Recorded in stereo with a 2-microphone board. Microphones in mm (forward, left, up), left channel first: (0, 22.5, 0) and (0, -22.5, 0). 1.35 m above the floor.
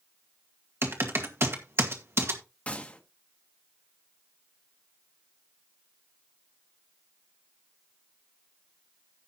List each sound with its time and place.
0.8 s typing on a keyboard: 65° right (ahead or behind), 2.0 m
2.7 s a gunshot: 30° left (ahead or behind), 1.4 m